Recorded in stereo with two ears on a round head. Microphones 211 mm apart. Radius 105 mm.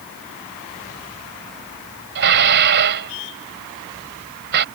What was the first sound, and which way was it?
Dishes clattering, 50° right (ahead or behind).